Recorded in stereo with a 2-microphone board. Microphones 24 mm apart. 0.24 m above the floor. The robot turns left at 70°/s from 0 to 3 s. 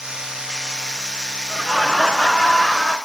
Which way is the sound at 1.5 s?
170° right.